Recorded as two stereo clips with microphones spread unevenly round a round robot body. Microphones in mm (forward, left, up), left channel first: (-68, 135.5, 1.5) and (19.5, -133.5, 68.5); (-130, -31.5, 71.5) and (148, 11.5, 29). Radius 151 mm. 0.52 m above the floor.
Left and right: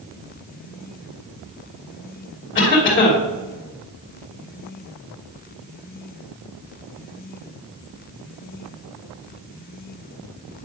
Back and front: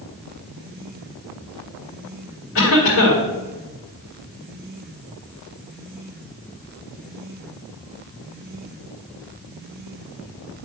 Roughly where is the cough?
Behind left.